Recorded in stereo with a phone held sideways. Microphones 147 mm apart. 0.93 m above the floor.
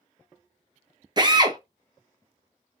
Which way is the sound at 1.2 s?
30° right (ahead or behind).